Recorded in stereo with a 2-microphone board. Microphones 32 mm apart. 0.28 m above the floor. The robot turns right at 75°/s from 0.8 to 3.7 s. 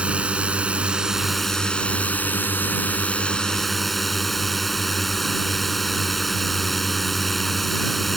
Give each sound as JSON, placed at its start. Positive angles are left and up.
{"t": 0.0, "sound": "a drone", "azimuth_deg": -40}